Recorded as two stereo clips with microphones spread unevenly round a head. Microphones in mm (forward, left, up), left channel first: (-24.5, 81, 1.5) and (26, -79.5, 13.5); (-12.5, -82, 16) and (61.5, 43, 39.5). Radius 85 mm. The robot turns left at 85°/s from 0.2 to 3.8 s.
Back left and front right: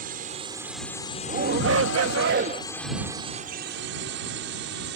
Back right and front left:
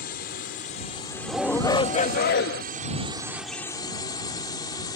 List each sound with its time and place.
0.0 s a drone: 115° right; by 5.0 s 60° right
1.3 s a shout: 20° right; by 2.6 s 135° right